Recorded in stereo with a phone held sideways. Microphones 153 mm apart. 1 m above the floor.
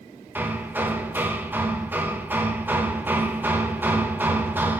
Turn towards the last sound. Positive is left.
turn(degrees=-15)  # may be behind; listen again after turning